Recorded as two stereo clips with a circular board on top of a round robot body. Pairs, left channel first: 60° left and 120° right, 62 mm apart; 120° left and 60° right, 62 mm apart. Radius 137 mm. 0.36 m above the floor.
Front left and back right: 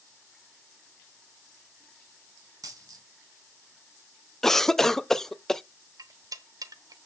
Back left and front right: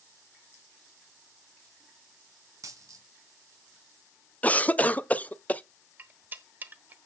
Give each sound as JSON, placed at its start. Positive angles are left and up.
{"t": 2.6, "sound": "a dropped coin", "azimuth_deg": -100, "distance_m": 2.5}
{"t": 4.4, "sound": "a cough", "azimuth_deg": 135, "distance_m": 0.8}
{"t": 6.0, "sound": "cutlery clinking", "azimuth_deg": -120, "distance_m": 1.1}